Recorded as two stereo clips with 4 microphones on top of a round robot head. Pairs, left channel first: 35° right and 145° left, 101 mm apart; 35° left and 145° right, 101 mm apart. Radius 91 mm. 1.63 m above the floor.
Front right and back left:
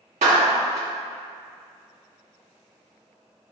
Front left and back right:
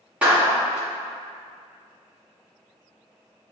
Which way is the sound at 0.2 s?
135° left.